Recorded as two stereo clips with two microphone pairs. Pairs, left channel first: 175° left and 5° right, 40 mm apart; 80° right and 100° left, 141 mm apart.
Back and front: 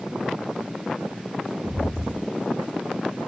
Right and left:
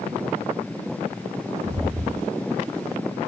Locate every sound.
1.6 s footsteps: 70° left, 1.8 m